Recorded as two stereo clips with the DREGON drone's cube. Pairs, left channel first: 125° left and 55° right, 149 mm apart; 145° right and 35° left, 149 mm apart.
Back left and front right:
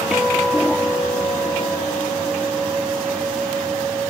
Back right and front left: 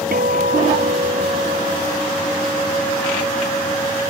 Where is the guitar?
30° left.